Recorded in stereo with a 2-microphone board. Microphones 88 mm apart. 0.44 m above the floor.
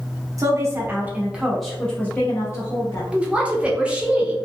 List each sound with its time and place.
0.4 s a woman speaking: 40° right (ahead or behind), 1.1 m; by 3.0 s 45° left (ahead or behind), 1.1 m
3.1 s a woman speaking: 15° right (ahead or behind), 0.7 m